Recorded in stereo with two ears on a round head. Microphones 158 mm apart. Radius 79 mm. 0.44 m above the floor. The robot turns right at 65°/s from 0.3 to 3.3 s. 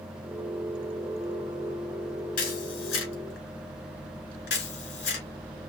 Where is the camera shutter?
50° left (ahead or behind), 2.5 m; by 5.3 s 70° left (ahead or behind), 2.5 m.